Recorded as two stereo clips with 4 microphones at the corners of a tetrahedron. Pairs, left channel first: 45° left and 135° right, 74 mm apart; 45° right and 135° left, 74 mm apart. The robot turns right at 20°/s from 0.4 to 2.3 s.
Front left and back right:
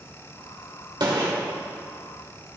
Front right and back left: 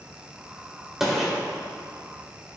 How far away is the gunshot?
About 1.8 m.